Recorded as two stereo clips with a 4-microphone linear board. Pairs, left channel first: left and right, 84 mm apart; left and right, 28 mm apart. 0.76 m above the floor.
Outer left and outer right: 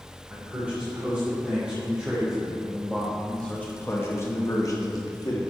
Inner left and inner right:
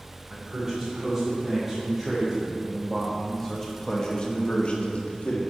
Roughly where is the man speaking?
Right.